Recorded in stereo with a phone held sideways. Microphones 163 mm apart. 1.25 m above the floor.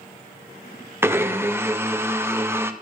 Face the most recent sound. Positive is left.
turn(degrees=-15)  # may be behind; listen again after turning